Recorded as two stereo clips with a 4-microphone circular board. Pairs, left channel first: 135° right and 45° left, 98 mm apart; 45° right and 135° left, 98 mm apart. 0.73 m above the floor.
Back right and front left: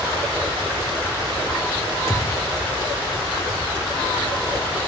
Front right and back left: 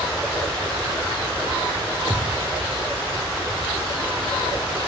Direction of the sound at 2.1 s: 165° left.